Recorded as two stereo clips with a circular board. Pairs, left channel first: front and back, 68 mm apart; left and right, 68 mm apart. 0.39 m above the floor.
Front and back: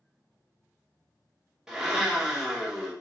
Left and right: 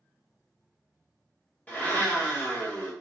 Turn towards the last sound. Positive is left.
turn(degrees=110)